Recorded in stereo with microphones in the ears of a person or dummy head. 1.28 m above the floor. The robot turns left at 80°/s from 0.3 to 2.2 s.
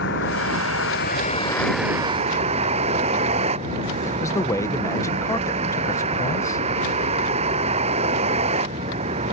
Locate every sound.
0.0 s a vehicle: 115° left; by 9.3 s 35° right
4.0 s a man speaking: 20° left (ahead or behind)